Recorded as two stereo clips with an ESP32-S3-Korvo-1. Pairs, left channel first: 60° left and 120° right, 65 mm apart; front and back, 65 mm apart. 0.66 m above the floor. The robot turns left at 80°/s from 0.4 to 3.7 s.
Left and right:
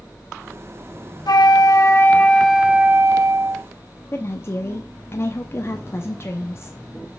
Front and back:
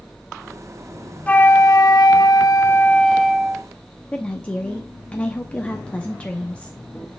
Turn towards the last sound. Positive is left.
turn(degrees=60)